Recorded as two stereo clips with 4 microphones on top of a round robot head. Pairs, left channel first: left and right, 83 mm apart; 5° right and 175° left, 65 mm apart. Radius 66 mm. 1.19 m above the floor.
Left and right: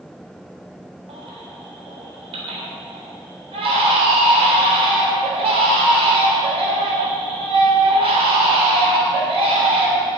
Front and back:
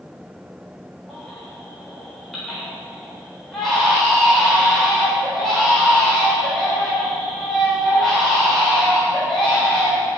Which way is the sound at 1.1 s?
90° right.